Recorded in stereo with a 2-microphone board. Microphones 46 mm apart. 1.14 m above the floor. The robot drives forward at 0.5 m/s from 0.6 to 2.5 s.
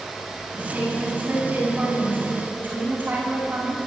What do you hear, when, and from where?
0.5 s a woman speaking: 35° right (ahead or behind), 10 m; by 3.8 s 40° right (ahead or behind), 9 m